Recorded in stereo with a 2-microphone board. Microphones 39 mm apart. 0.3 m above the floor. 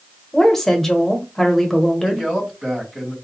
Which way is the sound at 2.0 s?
15° right (ahead or behind).